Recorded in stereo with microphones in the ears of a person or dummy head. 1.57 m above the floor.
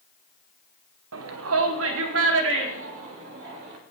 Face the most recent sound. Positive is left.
turn(degrees=-75)  # may be behind; listen again after turning